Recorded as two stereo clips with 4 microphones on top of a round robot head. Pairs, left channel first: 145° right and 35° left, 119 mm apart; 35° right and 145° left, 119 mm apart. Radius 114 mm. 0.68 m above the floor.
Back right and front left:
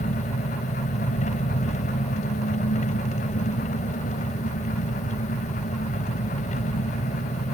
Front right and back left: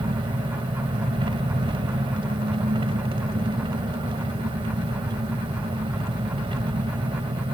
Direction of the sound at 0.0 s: 170° right.